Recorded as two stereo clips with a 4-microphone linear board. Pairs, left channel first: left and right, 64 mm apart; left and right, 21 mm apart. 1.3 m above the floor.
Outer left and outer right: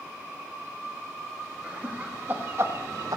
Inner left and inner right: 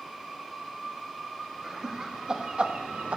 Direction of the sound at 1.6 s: 20° right (ahead or behind).